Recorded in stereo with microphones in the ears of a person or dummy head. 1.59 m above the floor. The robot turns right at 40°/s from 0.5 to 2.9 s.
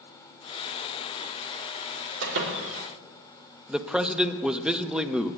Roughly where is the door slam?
Right.